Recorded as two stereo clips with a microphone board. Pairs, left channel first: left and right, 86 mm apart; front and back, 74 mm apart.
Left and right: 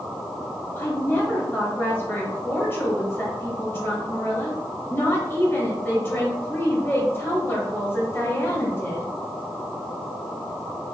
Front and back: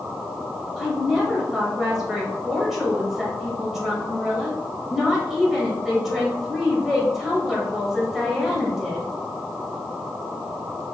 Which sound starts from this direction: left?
A woman speaking, at 0.8 s.